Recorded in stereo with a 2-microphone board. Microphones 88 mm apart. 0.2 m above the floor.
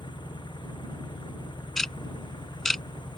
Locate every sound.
0.0 s an engine running: 60° left (ahead or behind)
1.8 s ticking: 5° left (ahead or behind)